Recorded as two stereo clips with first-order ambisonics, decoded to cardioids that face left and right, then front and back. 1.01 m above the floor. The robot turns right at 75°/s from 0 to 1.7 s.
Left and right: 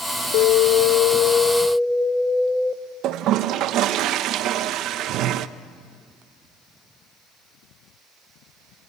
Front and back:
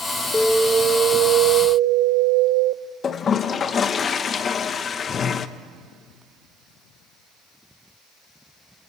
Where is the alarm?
75° left, 0.8 m; by 2.8 s 175° left, 0.8 m.